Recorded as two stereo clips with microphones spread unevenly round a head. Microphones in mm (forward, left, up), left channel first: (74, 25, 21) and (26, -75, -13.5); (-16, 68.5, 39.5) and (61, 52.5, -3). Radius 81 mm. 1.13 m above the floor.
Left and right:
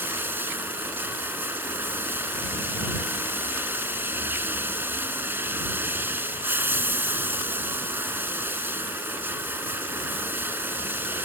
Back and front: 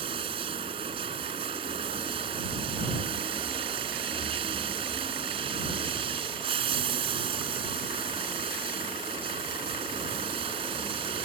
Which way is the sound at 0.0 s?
40° right.